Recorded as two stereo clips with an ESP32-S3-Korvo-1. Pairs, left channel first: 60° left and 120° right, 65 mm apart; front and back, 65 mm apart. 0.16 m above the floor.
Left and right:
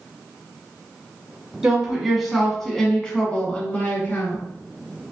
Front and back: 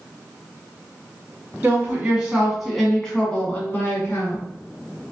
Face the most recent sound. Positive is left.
turn(degrees=20)